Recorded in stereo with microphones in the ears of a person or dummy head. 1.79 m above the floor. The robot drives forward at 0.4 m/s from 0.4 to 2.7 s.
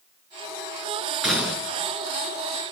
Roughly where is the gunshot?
Centre.